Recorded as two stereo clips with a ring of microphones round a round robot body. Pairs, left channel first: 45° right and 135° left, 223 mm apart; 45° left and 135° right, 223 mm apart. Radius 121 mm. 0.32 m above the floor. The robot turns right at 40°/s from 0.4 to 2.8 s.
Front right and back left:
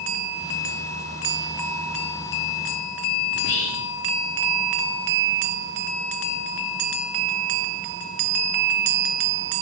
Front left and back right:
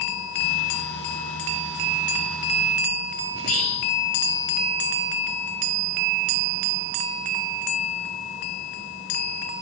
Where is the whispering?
5° right, 5 m.